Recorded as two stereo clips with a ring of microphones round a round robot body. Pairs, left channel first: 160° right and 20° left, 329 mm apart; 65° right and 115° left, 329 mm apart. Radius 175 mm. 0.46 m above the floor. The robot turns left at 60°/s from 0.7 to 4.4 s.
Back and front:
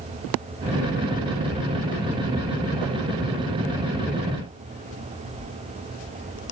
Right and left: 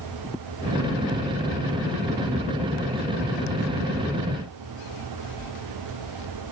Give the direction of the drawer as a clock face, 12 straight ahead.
I don't hear a drawer.